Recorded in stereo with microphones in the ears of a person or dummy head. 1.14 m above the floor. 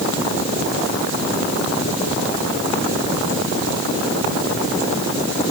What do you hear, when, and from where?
Only background noise.